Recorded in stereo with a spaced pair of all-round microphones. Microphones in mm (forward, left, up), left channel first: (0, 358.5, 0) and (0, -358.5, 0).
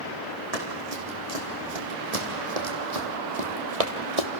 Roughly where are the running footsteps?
Right.